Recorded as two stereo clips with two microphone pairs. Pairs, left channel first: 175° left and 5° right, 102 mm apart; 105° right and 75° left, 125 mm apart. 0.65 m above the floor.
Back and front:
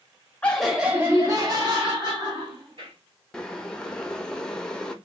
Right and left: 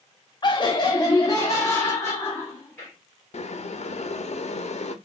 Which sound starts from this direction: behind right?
Laughter, at 0.4 s.